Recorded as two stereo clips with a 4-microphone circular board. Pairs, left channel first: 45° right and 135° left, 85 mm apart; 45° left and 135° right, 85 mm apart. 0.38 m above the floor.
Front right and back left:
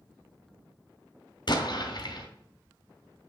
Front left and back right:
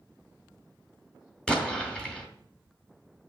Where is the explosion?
35° right, 1.9 m.